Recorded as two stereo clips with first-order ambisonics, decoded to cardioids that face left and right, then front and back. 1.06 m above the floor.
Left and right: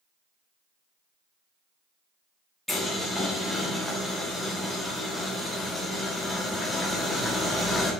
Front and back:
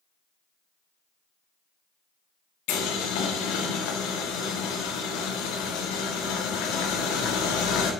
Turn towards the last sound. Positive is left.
turn(degrees=0)